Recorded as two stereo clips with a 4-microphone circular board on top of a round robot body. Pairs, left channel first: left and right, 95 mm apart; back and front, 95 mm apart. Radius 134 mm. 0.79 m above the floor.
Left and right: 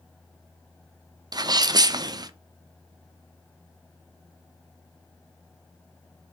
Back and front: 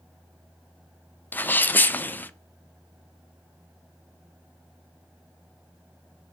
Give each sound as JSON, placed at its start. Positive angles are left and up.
{"t": 1.3, "sound": "a sneeze", "azimuth_deg": -115, "distance_m": 0.5}